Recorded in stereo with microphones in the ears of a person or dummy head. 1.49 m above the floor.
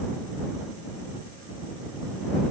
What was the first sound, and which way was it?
Only background noise.